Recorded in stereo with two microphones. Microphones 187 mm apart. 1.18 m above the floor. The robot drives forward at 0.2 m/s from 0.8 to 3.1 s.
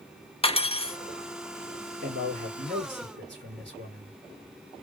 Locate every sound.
0.4 s cutlery clinking: 30° left (ahead or behind), 0.5 m
2.0 s a man speaking: 75° right (ahead or behind), 3.5 m; by 4.2 s 70° right (ahead or behind), 3.5 m